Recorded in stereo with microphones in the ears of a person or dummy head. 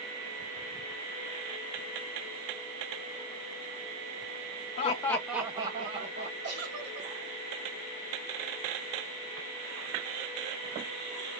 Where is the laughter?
40° left (ahead or behind), 0.6 m; by 6.3 s 35° right (ahead or behind), 1.3 m.